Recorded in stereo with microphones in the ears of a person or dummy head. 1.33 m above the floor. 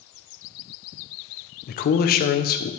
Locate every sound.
1.7 s a man speaking: 45° left (ahead or behind), 0.6 m